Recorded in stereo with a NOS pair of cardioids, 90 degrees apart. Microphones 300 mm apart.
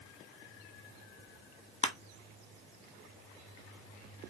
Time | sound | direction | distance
1.8 | crushing | 20° left | 0.8 m